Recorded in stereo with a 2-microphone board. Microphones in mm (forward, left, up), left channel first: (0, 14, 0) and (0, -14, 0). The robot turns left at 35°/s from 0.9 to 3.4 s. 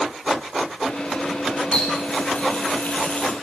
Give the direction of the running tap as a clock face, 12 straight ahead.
7 o'clock.